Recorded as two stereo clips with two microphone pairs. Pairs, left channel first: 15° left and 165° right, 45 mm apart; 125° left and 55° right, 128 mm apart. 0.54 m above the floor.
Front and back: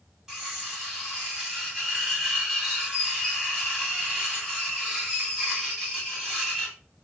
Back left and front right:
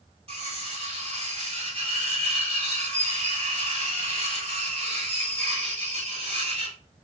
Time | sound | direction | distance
0.3 | cutlery clinking | 95° right | 1.9 m